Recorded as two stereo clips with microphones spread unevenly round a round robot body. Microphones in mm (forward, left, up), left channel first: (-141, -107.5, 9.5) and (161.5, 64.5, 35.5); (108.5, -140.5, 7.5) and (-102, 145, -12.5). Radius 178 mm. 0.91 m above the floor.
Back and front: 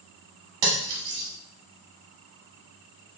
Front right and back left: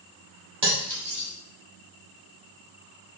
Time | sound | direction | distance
0.6 | cutlery clinking | 50° left | 0.9 m